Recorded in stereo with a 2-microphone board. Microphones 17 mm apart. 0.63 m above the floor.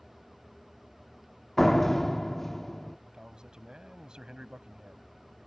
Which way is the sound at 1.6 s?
15° left (ahead or behind).